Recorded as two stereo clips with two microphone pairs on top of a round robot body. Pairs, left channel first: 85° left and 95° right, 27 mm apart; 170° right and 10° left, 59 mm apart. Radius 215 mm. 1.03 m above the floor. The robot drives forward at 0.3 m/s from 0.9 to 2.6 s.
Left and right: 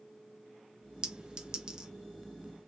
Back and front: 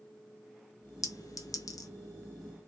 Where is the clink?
150° right, 1.3 m; by 1.9 s 155° right, 1.5 m.